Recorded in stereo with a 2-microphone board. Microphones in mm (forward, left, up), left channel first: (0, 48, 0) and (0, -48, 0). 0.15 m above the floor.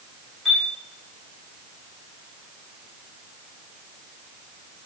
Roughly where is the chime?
Centre.